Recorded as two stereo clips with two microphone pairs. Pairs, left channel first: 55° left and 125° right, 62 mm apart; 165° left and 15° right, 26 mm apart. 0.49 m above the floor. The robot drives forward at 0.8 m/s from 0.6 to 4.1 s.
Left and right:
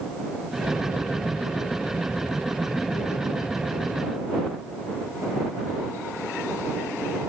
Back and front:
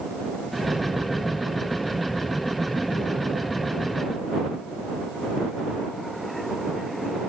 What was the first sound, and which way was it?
Only background noise.